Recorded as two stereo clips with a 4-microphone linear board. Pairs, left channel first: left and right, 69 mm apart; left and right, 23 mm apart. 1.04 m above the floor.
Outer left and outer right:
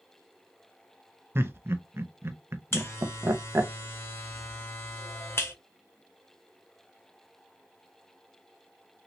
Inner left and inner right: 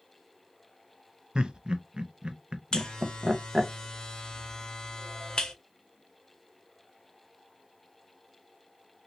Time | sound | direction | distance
1.4 | laughter | 35° right (ahead or behind) | 0.6 m
2.7 | a buzzer | 35° left (ahead or behind) | 0.7 m